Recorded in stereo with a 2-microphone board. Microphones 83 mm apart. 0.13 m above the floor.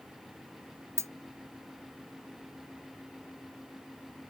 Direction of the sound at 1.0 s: 40° right (ahead or behind).